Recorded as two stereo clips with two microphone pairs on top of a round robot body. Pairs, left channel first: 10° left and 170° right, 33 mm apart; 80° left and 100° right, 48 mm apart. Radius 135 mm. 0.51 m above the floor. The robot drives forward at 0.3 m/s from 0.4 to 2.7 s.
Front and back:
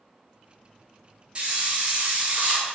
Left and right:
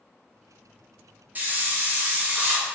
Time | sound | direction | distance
1.4 | a hiss | 130° right | 1.3 m